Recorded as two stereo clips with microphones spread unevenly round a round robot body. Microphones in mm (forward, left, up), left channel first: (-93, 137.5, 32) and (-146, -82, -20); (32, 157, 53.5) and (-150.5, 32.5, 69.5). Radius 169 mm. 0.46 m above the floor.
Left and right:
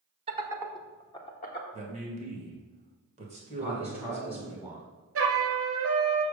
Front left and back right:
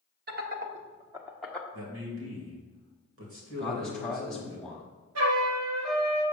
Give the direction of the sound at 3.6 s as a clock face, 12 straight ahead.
1 o'clock.